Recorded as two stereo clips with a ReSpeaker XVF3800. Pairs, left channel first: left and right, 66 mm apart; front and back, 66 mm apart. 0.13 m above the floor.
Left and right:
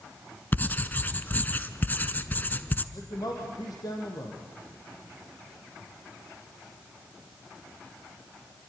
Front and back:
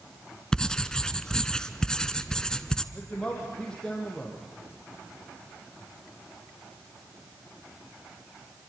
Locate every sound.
0.5 s writing: 65° left, 0.9 m
2.9 s a man speaking: 75° left, 4 m